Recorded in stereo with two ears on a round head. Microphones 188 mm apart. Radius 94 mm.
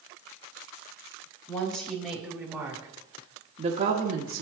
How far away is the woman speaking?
About 1.5 m.